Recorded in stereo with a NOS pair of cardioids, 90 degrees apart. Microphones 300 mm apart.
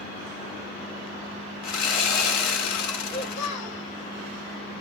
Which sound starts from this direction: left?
A child speaking, at 3.0 s.